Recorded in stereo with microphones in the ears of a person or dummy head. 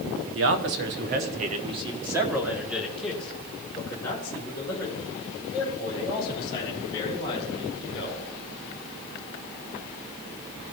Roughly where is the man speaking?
Right.